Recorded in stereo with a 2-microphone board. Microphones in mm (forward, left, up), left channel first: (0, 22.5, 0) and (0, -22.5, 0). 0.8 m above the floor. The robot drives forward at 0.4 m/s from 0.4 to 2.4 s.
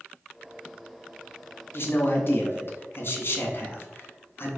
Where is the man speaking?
55° left (ahead or behind), 0.9 m.